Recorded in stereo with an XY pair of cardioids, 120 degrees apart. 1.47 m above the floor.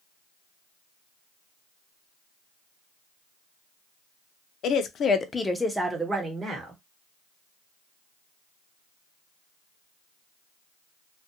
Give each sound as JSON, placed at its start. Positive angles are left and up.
{"t": 4.6, "sound": "a woman speaking", "azimuth_deg": 65, "distance_m": 0.6}